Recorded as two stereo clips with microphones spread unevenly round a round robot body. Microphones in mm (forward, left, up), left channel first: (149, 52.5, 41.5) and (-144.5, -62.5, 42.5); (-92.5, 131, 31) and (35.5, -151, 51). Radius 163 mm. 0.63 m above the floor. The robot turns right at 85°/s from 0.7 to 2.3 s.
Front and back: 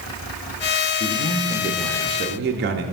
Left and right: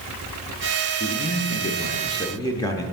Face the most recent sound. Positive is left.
turn(degrees=180)